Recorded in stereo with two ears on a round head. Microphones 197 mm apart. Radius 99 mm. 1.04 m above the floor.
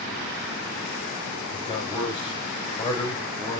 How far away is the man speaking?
About 5.5 m.